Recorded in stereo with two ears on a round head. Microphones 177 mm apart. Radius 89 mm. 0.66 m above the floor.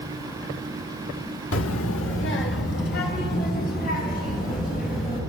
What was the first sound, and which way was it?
A child speaking, 70° left (ahead or behind).